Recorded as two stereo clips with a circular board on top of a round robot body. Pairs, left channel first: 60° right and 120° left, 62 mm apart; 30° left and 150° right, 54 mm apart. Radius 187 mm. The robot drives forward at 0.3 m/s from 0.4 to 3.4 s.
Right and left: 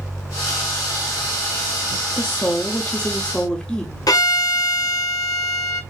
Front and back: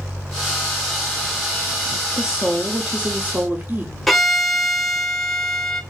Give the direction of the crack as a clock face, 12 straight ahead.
No crack in this recording.